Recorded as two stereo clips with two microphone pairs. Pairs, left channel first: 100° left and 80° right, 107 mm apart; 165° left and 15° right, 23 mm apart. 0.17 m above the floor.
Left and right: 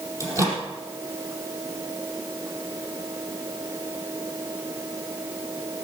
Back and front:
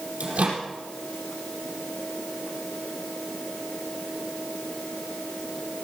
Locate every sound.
0.2 s a microwave: 20° right, 4 m